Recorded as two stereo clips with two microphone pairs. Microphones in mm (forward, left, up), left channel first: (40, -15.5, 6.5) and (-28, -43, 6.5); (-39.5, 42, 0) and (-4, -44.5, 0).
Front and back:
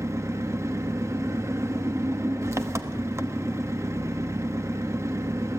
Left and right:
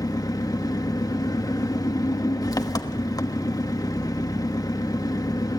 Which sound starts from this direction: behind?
An engine running, at 0.0 s.